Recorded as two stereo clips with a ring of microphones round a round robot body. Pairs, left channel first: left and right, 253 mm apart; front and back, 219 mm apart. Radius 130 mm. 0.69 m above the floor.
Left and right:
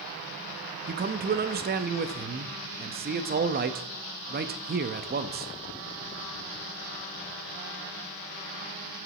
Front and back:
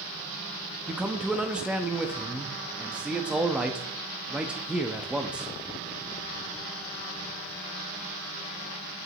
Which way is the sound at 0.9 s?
100° right.